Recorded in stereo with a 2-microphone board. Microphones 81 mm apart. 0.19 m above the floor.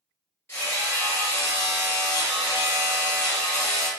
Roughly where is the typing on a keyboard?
I don't hear typing on a keyboard.